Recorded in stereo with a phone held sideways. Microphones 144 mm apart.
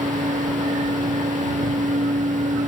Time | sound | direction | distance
0.0 | a fan | 60° right (ahead or behind) | ?